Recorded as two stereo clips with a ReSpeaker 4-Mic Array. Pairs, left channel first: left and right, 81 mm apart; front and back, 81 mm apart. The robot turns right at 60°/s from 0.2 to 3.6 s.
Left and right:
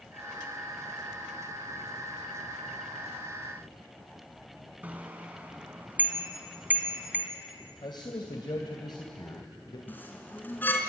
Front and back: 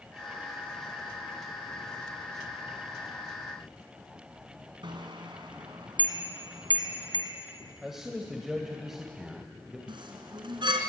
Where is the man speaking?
95° left, 2.5 m.